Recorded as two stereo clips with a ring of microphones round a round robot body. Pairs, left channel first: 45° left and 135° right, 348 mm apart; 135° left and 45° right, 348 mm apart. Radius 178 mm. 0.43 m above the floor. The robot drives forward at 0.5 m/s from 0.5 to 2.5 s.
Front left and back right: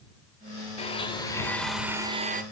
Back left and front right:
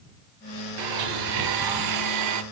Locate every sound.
0.8 s a blender: 25° right, 1.2 m; by 2.4 s 75° right, 0.7 m